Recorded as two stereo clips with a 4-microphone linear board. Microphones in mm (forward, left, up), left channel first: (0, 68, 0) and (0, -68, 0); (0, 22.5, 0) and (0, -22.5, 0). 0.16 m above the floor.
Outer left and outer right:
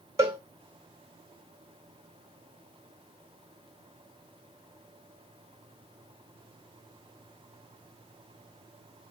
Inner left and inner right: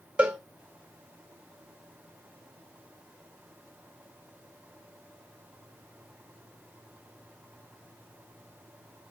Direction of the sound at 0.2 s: 20° right (ahead or behind).